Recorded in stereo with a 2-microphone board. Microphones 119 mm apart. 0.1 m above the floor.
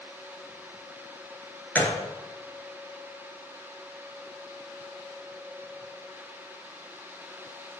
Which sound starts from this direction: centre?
A gunshot, at 1.8 s.